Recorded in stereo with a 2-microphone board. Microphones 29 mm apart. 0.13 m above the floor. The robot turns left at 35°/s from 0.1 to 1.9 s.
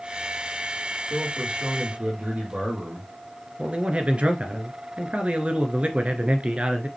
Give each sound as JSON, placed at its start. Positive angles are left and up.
{"t": 1.1, "sound": "a man speaking", "side_deg": -35, "distance_m": 4.5}
{"t": 3.6, "sound": "a man speaking", "side_deg": -45, "distance_m": 1.5}